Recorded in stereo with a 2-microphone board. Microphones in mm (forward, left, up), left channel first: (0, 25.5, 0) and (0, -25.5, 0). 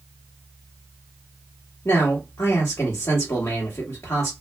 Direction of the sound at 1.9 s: 65° left (ahead or behind).